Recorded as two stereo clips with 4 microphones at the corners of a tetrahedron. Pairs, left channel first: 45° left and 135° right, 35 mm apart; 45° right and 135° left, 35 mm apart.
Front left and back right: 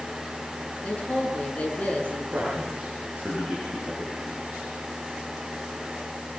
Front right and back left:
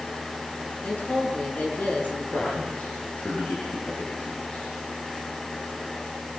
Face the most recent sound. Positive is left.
turn(degrees=-85)